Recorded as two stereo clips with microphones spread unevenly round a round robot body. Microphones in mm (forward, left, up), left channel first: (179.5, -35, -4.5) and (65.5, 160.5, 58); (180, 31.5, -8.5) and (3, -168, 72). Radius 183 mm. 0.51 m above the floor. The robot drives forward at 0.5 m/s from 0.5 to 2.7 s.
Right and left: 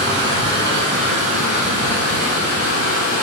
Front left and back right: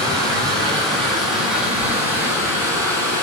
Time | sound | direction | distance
0.0 | running water | 170° left | 0.9 m